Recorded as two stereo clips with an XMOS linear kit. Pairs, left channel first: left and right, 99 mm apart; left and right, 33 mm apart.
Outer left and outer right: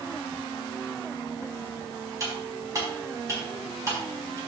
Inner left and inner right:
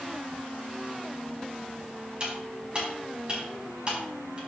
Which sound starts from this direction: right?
Cutlery clinking, at 2.2 s.